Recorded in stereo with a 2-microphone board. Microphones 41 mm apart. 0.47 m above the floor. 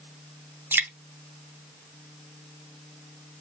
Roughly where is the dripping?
Right.